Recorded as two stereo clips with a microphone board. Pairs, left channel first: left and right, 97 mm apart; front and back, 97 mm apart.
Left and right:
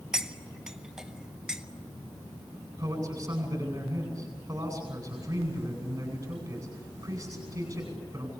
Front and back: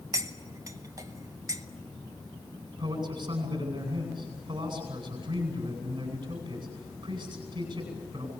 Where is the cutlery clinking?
170° right, 0.8 m.